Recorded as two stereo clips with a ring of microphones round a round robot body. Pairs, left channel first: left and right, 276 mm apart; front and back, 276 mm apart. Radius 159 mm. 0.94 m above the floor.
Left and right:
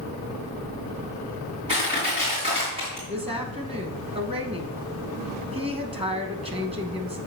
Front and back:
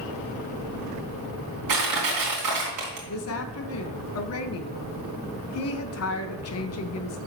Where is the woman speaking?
20° right, 1.1 m.